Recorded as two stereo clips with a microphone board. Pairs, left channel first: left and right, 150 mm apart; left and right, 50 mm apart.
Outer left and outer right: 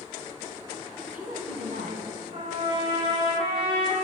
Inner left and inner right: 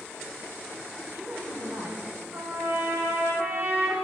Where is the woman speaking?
65° right (ahead or behind), 2 m.